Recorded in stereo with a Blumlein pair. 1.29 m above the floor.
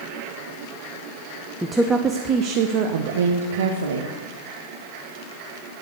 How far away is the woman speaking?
About 0.9 m.